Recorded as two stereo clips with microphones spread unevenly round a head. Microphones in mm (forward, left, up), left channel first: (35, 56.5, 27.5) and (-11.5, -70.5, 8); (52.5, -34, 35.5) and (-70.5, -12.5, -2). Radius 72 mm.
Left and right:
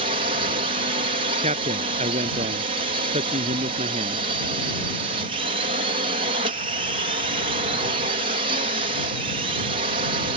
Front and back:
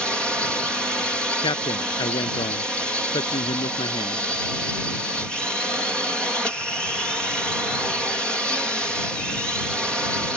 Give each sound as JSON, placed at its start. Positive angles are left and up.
{"t": 0.0, "sound": "a drone", "azimuth_deg": -105}
{"t": 1.4, "sound": "a man speaking", "azimuth_deg": -65}